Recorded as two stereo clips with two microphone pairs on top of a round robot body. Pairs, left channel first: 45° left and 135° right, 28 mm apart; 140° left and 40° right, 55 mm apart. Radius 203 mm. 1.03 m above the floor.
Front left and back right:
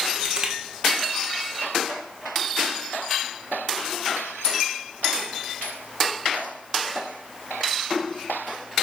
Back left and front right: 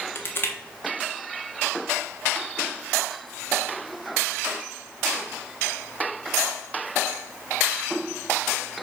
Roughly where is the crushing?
Behind.